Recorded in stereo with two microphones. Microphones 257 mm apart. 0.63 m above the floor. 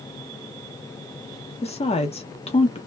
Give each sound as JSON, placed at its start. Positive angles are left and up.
{"t": 1.6, "sound": "a woman speaking", "side_deg": 20, "distance_m": 0.7}